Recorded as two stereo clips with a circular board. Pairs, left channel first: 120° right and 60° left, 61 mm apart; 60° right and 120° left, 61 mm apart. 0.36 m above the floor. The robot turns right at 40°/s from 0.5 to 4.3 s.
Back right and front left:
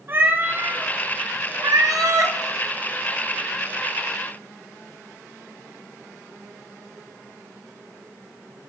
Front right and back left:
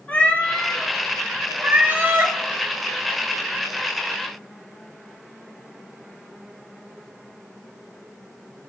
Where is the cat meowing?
5° left, 1.1 m; by 2.4 s 80° left, 1.1 m.